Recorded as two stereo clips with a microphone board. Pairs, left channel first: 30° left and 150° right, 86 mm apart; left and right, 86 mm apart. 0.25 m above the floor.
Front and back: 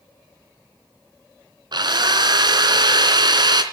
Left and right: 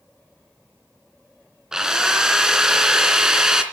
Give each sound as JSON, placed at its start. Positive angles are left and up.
{"t": 1.7, "sound": "a drill", "azimuth_deg": -170, "distance_m": 2.5}